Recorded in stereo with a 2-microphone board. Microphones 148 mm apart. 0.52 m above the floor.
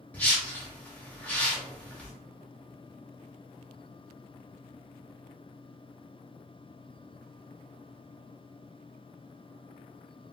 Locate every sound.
0.1 s a whoosh: 10° left (ahead or behind), 0.8 m